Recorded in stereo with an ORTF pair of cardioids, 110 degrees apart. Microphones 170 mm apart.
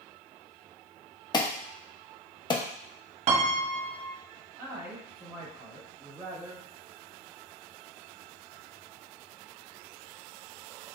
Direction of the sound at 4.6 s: 15° right.